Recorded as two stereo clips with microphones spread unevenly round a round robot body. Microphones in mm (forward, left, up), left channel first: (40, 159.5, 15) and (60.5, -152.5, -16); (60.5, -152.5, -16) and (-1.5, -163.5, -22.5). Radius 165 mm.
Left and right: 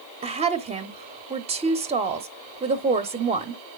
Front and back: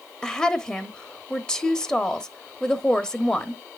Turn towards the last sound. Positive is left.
turn(degrees=-65)